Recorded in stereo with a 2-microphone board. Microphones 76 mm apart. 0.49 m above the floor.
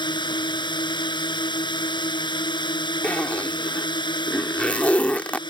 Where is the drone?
80° left.